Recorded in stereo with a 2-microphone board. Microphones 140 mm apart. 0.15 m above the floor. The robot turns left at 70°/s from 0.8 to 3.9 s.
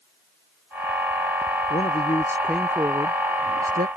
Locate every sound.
1.7 s a man speaking: 55° left; by 3.9 s 95° right